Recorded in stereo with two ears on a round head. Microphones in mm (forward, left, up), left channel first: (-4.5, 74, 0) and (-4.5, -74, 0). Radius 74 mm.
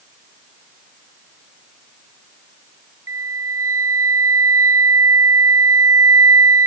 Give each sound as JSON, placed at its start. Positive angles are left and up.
{"t": 3.1, "sound": "a flute", "side_deg": -15}